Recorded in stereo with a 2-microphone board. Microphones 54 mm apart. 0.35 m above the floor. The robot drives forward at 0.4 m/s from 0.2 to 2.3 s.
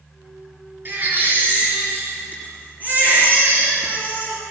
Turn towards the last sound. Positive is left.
turn(degrees=-30)  # may be behind; listen again after turning